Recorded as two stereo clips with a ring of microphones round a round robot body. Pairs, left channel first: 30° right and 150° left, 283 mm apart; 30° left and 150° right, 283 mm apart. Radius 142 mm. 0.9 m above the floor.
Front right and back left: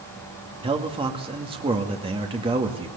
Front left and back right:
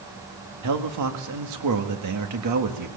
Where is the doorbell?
I don't hear a doorbell.